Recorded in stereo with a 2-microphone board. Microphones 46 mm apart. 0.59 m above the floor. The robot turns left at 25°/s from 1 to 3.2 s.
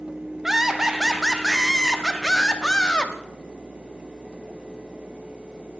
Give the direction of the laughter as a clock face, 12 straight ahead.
5 o'clock.